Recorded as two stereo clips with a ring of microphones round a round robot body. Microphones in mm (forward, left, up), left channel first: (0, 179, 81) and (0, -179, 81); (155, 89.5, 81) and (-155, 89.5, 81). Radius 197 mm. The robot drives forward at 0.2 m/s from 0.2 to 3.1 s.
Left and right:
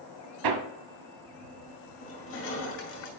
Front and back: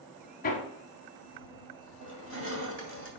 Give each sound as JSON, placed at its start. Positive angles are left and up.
{"t": 0.4, "sound": "hammering", "azimuth_deg": -65, "distance_m": 0.9}
{"t": 2.0, "sound": "crushing", "azimuth_deg": 140, "distance_m": 2.5}